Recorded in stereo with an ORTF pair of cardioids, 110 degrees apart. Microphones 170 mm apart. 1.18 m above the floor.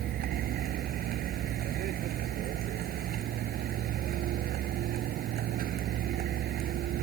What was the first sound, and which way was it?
A vehicle, 65° right.